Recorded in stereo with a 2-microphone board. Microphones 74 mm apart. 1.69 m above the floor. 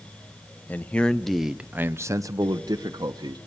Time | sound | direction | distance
0.7 | a man speaking | 20° left (ahead or behind) | 1.0 m